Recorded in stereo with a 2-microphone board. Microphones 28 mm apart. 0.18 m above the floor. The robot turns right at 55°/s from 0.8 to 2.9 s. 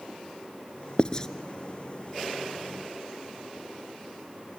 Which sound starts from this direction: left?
Writing, at 1.0 s.